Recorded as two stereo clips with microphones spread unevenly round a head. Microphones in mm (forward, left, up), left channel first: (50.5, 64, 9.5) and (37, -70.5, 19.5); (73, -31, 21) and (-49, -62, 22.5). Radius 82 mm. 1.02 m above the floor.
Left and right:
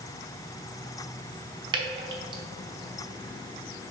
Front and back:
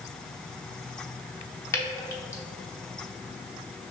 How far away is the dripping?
About 0.8 m.